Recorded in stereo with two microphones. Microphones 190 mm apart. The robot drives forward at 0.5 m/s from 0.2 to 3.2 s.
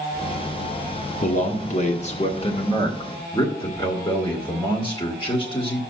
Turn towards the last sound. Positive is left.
turn(degrees=25)  # may be behind; listen again after turning